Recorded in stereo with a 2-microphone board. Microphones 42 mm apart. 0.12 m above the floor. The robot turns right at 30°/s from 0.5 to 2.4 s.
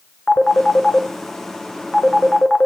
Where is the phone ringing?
35° left (ahead or behind), 0.7 m; by 2.7 s 15° left (ahead or behind), 0.7 m.